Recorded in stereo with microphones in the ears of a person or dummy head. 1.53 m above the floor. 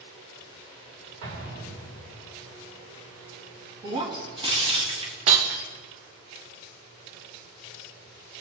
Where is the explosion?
80° right, 4 m.